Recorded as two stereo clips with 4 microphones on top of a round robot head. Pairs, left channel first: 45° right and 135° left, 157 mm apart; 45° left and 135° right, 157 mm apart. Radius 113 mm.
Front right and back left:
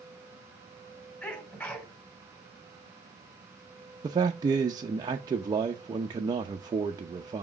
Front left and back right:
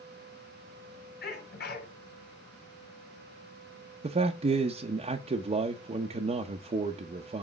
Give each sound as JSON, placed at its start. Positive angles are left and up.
{"t": 1.2, "sound": "a sneeze", "azimuth_deg": 35, "distance_m": 2.5}
{"t": 4.0, "sound": "a man speaking", "azimuth_deg": -170, "distance_m": 0.7}